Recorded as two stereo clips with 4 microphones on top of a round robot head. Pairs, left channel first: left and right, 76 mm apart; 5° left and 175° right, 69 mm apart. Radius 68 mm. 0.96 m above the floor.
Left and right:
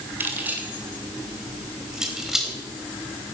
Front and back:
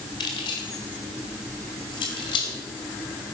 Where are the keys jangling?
25° right, 2.5 m; by 3.3 s straight ahead, 3.5 m.